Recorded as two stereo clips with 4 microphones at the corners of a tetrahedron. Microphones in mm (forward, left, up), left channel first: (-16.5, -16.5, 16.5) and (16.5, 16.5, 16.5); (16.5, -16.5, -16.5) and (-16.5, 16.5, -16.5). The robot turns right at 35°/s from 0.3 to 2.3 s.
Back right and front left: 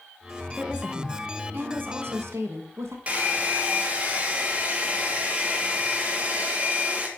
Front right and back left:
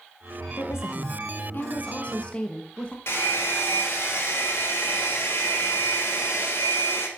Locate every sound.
0.6 s a woman speaking: 40° right, 1.5 m; by 3.0 s 20° left, 1.5 m
3.1 s a hair dryer: 15° right, 1.8 m